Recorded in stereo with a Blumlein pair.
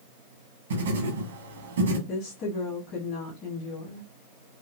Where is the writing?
65° right, 1.3 m.